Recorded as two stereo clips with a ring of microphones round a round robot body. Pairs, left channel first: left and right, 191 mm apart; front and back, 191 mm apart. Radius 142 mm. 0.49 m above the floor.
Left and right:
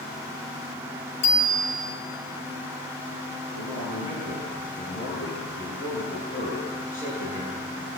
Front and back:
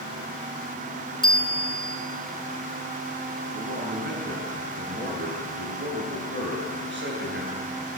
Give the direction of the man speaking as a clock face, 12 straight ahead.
7 o'clock.